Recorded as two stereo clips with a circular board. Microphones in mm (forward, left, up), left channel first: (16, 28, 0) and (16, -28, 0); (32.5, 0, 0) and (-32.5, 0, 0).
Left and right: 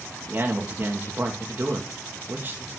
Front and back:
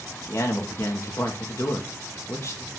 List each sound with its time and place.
0.3 s a man speaking: 40° right, 2.5 m